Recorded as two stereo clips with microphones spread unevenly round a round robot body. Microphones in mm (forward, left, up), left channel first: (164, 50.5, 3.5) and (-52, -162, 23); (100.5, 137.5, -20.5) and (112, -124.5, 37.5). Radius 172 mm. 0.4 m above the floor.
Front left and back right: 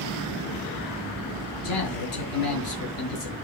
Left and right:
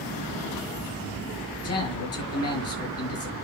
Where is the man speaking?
70° left, 6 m.